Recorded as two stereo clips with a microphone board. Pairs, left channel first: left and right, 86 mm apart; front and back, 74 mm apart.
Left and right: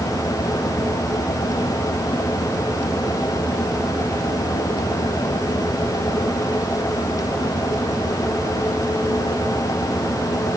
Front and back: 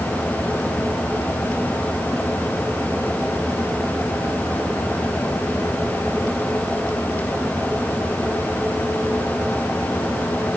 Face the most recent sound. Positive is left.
No sound to turn to.